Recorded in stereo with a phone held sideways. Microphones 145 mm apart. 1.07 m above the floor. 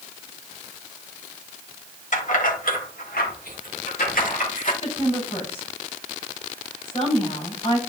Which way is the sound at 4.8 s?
45° left (ahead or behind).